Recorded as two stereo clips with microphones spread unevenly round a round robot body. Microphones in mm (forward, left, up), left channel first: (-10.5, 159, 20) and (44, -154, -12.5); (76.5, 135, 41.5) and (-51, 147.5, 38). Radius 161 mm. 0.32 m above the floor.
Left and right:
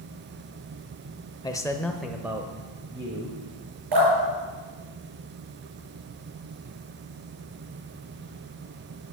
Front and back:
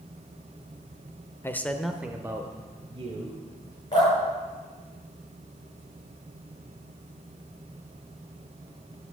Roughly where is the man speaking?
Ahead left.